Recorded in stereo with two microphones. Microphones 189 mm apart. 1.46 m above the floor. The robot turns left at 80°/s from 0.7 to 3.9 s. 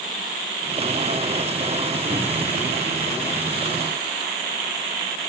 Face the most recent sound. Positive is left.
turn(degrees=150)